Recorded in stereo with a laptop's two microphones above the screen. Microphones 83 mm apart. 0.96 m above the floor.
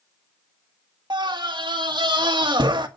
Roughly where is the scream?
Right.